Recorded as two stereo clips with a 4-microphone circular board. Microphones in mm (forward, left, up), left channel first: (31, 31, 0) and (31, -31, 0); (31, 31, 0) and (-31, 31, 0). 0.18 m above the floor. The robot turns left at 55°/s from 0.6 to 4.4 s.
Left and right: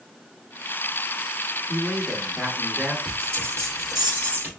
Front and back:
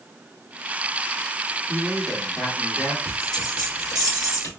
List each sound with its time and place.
1.7 s a man speaking: 100° left, 1.5 m; by 3.0 s 30° left, 1.5 m
3.0 s a bell: 45° left, 2.0 m; by 4.5 s 30° right, 2.0 m